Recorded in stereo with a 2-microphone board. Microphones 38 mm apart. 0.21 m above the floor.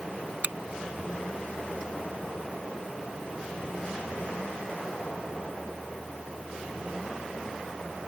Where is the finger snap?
55° right (ahead or behind).